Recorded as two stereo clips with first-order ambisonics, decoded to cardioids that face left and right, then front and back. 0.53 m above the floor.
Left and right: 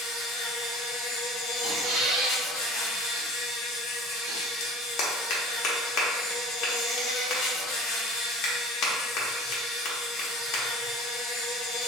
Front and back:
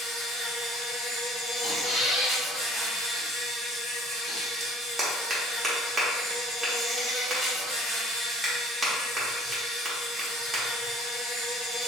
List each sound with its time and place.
0.0 s an insect: 95° left, 1.2 m
1.6 s a squeak: 80° right, 1.0 m
4.6 s a clap: 110° left, 0.7 m